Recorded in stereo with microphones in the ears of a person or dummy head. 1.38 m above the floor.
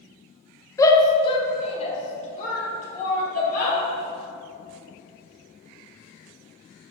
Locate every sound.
0.8 s a shout: 20° left (ahead or behind), 1.0 m; by 3.8 s 50° left (ahead or behind), 2.5 m